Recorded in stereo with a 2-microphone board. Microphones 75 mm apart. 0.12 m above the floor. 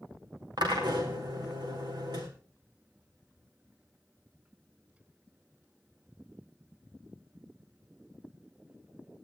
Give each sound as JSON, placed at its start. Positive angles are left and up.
{"t": 0.6, "sound": "a drill", "side_deg": -75, "distance_m": 4.0}